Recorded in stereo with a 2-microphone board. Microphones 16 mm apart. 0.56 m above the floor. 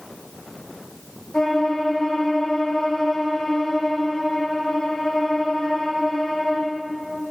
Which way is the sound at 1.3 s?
45° left (ahead or behind).